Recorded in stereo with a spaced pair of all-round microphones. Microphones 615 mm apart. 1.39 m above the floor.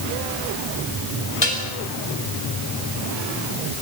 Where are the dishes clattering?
45° left (ahead or behind), 5.5 m.